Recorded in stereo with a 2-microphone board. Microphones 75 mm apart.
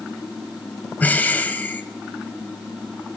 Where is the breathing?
20° left (ahead or behind), 1.3 m.